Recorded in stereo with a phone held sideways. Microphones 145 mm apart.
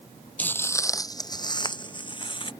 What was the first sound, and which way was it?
Footsteps, 10° left (ahead or behind).